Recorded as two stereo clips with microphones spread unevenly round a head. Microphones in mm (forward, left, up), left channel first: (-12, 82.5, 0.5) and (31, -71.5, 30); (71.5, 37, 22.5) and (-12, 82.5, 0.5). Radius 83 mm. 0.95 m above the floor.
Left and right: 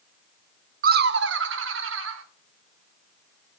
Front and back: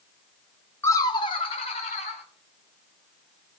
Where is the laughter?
105° right, 0.8 m; by 2.2 s 75° right, 2.5 m.